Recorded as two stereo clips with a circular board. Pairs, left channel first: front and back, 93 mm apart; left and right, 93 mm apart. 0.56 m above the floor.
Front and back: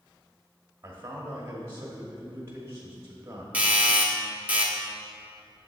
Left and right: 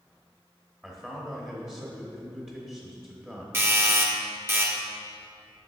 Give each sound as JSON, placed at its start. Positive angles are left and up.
{"t": 0.8, "sound": "a man speaking", "azimuth_deg": -160, "distance_m": 1.2}
{"t": 3.5, "sound": "a doorbell", "azimuth_deg": -120, "distance_m": 1.2}